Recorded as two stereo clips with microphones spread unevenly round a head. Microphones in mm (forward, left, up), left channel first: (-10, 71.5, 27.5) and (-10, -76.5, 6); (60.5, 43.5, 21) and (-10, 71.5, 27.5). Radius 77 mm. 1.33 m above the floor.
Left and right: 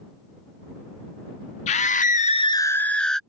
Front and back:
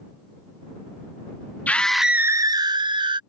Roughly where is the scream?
Ahead left.